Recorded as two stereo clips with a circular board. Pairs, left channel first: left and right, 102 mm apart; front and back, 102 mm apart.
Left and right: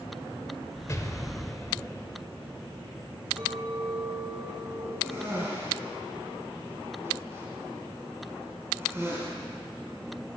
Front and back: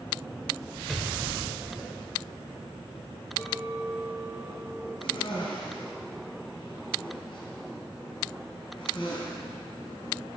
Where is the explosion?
90° left, 1.4 m.